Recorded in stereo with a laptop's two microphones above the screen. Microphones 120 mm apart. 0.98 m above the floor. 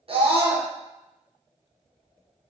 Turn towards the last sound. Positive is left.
turn(degrees=-45)  # may be behind; listen again after turning